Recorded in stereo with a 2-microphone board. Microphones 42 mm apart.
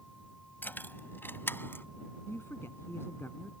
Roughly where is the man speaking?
Left.